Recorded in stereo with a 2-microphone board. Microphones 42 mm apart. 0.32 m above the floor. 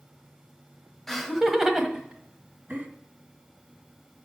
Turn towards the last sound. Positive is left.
turn(degrees=-35)  # may be behind; listen again after turning